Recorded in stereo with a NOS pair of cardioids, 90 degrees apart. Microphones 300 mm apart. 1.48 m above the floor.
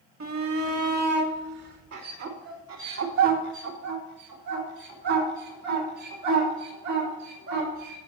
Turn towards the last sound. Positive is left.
turn(degrees=-80)